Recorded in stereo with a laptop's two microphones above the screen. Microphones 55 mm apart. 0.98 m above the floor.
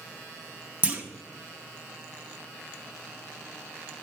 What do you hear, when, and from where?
0.8 s a clunk: 25° right (ahead or behind), 0.7 m